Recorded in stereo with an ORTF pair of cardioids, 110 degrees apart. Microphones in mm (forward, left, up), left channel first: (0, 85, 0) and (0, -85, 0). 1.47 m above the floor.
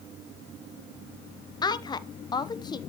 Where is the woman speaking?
25° left, 0.7 m.